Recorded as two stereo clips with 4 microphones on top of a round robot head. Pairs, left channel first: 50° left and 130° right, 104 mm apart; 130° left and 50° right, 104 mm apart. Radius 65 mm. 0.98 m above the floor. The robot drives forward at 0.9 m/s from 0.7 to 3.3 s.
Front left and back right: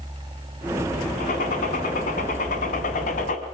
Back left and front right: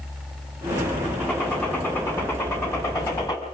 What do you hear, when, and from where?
1.2 s a gunshot: 50° left, 5.5 m; by 3.4 s 70° left, 4.5 m